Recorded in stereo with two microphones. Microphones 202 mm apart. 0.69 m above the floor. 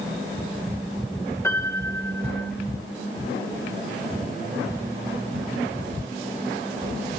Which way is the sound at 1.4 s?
10° left (ahead or behind).